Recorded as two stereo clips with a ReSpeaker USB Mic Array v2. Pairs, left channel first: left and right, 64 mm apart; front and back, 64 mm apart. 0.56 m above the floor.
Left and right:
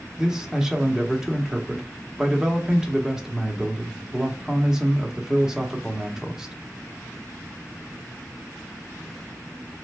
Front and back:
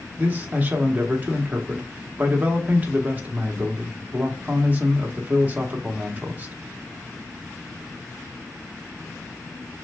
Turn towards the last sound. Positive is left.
turn(degrees=-165)